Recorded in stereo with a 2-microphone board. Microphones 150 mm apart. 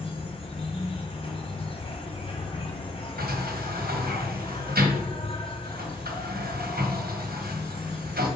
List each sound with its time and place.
0.0 s an insect: 35° left (ahead or behind), 1.4 m
3.2 s a sliding door: 75° right (ahead or behind), 1.1 m